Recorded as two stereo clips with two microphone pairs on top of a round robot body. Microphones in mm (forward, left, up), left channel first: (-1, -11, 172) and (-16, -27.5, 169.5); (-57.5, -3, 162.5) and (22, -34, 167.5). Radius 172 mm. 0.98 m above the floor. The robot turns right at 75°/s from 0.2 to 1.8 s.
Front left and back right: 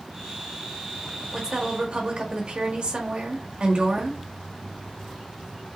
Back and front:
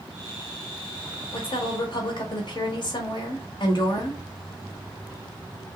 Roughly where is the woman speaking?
Behind left.